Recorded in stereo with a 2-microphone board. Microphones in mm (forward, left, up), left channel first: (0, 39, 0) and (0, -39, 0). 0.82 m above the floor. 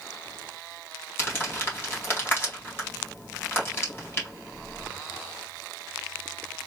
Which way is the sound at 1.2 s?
30° left (ahead or behind).